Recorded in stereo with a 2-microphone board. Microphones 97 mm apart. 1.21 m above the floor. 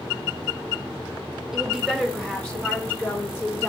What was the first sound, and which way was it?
A woman speaking, 5° right (ahead or behind).